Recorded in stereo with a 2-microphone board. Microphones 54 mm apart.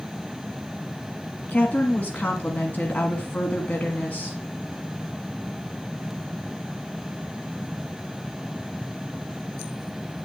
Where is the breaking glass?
No breaking glass in this recording.